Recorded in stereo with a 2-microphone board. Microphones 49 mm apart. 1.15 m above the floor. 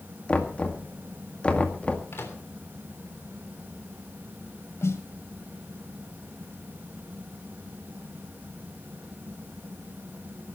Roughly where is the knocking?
Left.